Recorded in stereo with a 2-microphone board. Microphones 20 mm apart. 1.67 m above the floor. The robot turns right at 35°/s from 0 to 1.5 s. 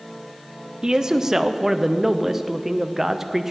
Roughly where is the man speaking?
Right.